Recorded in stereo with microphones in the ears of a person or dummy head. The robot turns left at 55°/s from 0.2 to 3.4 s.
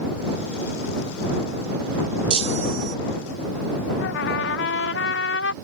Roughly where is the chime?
Ahead right.